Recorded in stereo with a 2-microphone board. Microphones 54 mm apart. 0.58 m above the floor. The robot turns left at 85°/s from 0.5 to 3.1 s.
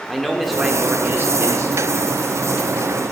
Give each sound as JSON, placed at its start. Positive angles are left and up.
{"t": 0.1, "sound": "a man speaking", "azimuth_deg": 5, "distance_m": 1.2}